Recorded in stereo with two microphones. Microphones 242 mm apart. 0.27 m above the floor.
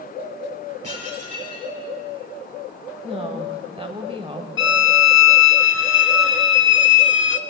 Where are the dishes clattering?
80° right, 4 m.